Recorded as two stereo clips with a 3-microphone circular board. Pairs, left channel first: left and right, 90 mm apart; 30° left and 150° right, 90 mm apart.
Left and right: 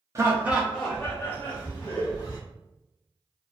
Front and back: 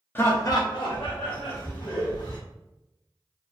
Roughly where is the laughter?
Ahead right.